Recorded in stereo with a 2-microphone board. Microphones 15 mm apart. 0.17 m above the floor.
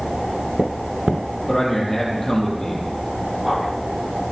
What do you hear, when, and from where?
1.5 s a man speaking: 35° left (ahead or behind), 4.5 m